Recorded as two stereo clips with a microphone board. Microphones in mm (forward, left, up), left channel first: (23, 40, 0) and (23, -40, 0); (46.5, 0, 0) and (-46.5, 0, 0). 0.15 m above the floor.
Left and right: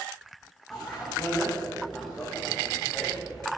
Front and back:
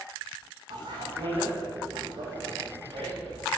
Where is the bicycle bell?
Straight behind, 10 m.